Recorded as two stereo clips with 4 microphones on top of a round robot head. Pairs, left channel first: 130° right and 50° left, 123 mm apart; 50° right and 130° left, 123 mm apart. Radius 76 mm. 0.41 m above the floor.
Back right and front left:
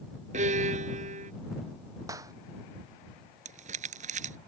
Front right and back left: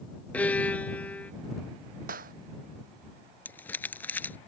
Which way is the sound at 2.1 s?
120° left.